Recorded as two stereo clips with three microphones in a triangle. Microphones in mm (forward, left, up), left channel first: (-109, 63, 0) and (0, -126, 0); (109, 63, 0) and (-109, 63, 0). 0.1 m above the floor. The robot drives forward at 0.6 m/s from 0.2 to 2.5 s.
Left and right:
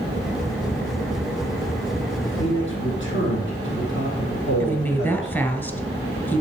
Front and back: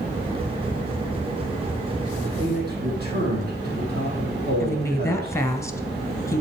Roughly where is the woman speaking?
Ahead left.